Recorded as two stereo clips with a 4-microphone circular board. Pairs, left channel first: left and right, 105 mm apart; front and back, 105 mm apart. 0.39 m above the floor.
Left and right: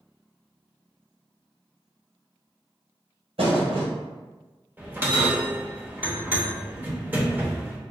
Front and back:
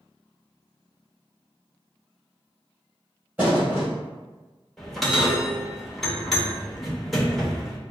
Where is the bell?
85° right, 0.9 m.